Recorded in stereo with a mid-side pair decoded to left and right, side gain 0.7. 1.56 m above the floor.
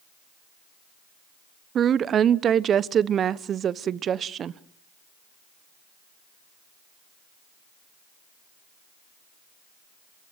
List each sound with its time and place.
1.8 s a woman speaking: 35° right, 1.0 m